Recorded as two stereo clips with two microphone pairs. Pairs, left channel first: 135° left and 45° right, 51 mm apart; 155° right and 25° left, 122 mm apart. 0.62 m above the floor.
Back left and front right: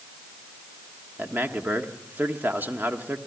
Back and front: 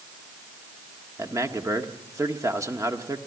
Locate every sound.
1.2 s a man speaking: 25° right, 1.4 m